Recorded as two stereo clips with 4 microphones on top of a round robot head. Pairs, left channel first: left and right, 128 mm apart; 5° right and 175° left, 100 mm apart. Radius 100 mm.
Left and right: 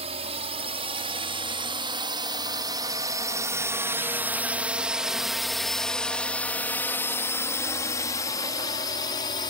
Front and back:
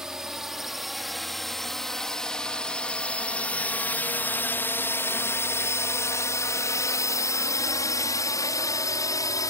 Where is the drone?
100° right; by 9.5 s 45° left.